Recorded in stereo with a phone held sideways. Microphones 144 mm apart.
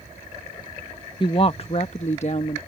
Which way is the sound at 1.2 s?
35° left (ahead or behind).